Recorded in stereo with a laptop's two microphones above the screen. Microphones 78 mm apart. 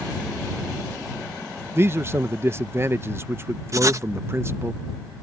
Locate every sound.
1.8 s a man speaking: 35° right (ahead or behind)
3.7 s writing: 45° right (ahead or behind)